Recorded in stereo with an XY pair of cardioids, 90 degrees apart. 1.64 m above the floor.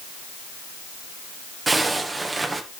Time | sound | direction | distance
1.7 | a zipper | 25° right | 1.7 m